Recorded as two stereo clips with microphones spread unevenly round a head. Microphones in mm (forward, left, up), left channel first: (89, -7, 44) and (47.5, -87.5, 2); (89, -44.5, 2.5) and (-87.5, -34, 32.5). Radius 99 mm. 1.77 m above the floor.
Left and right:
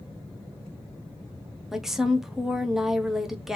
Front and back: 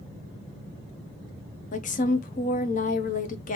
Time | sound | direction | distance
1.7 | a woman speaking | 10° left | 0.7 m